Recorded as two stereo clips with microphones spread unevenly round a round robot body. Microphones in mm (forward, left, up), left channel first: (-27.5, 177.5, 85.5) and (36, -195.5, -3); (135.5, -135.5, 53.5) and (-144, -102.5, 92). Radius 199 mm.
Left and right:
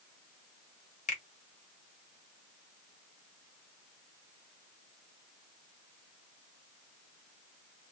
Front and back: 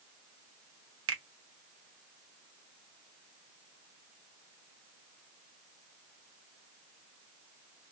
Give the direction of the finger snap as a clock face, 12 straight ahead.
6 o'clock.